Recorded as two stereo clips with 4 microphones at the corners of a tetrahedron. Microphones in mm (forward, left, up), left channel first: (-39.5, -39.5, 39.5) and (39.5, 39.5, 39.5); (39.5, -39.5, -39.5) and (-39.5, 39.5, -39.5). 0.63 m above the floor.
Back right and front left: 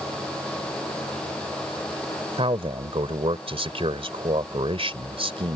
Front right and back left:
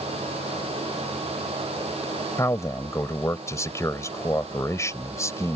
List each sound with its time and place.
2.4 s a man speaking: 15° left